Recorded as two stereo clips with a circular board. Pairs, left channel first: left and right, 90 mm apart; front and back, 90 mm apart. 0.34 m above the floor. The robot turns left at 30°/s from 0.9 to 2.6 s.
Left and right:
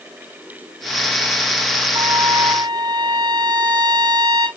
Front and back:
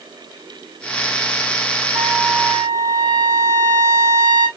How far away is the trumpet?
About 1.9 m.